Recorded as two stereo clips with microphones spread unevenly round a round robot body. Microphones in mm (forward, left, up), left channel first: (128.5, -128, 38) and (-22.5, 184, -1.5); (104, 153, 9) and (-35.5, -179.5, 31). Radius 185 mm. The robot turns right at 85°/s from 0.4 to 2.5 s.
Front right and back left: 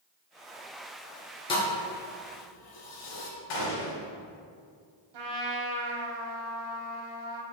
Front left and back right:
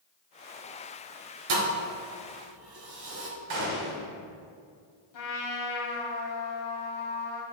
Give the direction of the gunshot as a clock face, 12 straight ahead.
3 o'clock.